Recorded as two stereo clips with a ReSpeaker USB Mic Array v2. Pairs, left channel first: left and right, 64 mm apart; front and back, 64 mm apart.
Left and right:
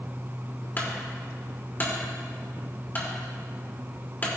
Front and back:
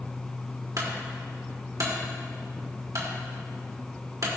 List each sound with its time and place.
0.8 s a clunk: 150° left, 2 m